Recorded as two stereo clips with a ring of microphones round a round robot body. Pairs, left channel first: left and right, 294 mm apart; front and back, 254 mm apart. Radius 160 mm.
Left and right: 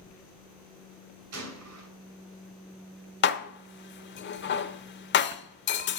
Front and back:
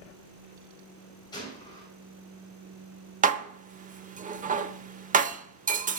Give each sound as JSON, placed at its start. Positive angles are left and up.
{"t": 1.3, "sound": "a gunshot", "azimuth_deg": -70, "distance_m": 2.5}
{"t": 3.2, "sound": "dishes clattering", "azimuth_deg": 130, "distance_m": 0.8}